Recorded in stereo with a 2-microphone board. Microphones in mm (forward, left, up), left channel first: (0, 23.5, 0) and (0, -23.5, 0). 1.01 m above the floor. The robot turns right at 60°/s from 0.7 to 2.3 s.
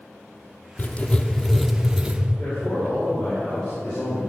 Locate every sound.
0.8 s writing: 130° left, 0.7 m; by 2.2 s 150° right, 0.7 m
2.4 s a man speaking: 25° left (ahead or behind), 4 m